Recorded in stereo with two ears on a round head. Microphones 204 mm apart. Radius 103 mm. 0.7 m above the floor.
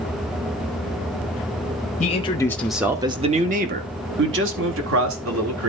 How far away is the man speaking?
About 1.0 m.